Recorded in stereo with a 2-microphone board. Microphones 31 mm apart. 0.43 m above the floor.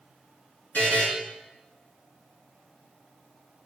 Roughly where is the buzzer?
Left.